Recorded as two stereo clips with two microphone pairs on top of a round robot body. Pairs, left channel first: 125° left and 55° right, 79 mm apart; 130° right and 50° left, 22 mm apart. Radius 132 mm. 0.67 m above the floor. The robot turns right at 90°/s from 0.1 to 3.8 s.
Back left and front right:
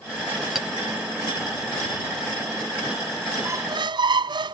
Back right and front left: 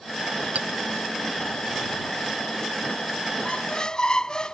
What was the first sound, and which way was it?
A clink, 35° left.